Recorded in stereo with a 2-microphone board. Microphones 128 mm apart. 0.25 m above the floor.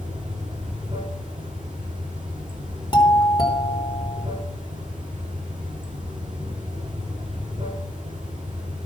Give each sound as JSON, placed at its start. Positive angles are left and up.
{"t": 0.0, "sound": "running water", "side_deg": -40, "distance_m": 7.5}
{"t": 2.9, "sound": "a doorbell", "side_deg": 35, "distance_m": 3.0}